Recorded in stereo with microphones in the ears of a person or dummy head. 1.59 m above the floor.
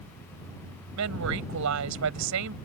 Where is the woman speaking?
75° right (ahead or behind).